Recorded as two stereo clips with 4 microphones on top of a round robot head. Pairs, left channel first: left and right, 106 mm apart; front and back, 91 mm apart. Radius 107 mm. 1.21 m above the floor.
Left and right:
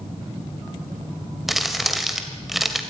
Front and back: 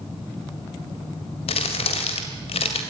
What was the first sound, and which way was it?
Crumpling, straight ahead.